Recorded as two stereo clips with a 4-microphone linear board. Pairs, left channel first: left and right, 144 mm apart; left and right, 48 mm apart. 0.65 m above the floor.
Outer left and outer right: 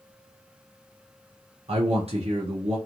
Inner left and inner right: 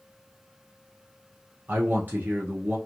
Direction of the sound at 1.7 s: 40° right (ahead or behind).